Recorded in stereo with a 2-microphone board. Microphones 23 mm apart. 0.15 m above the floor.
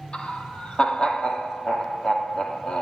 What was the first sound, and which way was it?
Laughter, 50° left (ahead or behind).